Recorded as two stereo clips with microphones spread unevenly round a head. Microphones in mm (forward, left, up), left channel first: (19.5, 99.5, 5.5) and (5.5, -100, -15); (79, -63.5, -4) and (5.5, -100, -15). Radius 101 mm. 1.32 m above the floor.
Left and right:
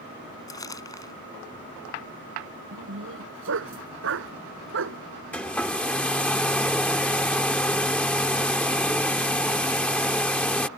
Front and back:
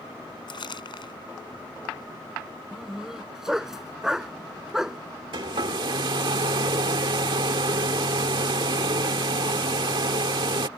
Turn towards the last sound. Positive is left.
turn(degrees=165)